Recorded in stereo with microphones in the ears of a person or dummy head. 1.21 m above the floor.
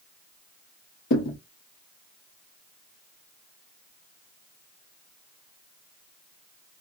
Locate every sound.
1.1 s a thud: 45° left (ahead or behind), 0.8 m